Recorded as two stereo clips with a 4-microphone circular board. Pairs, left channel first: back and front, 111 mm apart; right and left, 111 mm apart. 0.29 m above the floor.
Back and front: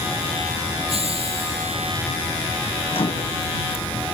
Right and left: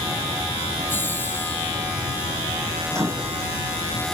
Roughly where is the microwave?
Behind left.